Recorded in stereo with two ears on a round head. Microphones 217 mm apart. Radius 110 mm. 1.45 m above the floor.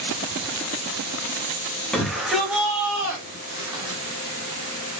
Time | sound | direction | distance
1.9 | a shout | 5° left (ahead or behind) | 2.5 m